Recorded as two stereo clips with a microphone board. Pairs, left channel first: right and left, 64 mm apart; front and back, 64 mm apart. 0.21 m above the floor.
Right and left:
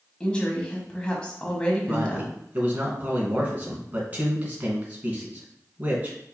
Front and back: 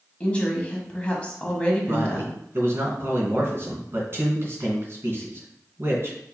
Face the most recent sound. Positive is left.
turn(degrees=140)